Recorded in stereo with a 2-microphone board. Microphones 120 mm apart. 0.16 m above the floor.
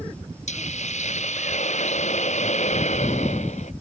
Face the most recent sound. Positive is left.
turn(degrees=75)  # may be behind; listen again after turning